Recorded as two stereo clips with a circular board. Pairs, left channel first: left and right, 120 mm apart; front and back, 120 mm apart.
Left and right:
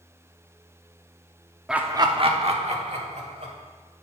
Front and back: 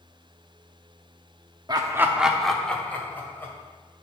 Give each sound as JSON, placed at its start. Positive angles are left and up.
{"t": 1.7, "sound": "laughter", "azimuth_deg": -170, "distance_m": 0.7}